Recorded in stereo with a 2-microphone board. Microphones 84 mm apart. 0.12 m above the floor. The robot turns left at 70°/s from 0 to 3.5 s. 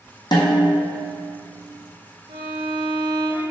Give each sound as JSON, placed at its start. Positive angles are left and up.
{"t": 0.3, "sound": "a snare drum", "azimuth_deg": 55, "distance_m": 1.6}
{"t": 2.3, "sound": "a violin", "azimuth_deg": -80, "distance_m": 1.4}